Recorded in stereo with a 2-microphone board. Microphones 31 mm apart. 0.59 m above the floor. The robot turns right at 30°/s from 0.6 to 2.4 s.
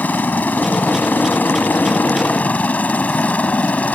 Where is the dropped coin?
No dropped coin in this recording.